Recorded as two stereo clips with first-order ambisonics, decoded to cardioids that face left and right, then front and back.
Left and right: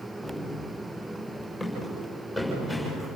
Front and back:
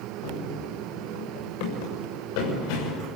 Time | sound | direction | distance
0.2 | running footsteps | straight ahead | 6.5 m